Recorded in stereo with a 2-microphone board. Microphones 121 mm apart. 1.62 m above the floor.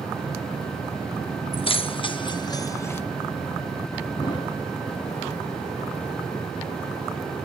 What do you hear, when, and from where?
1.5 s keys jangling: 50° left (ahead or behind), 1.1 m; by 3.0 s 20° left (ahead or behind), 0.9 m
4.2 s a thud: 40° left (ahead or behind), 6.5 m